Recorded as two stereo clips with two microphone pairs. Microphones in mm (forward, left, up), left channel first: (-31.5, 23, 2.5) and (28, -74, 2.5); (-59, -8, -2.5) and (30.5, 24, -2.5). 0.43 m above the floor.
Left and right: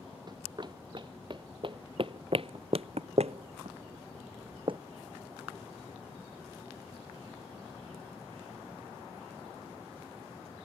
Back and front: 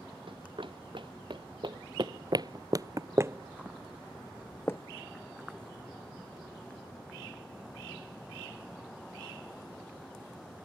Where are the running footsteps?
10° right; by 4.8 s 100° right.